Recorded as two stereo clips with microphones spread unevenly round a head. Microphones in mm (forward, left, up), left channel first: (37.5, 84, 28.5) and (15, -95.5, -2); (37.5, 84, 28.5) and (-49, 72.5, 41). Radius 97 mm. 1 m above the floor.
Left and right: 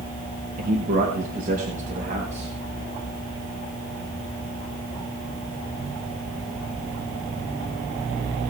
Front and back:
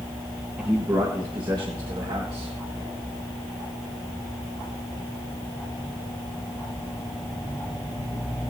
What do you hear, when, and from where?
0.6 s a man speaking: 95° right, 1.2 m; by 2.5 s 150° right, 2.5 m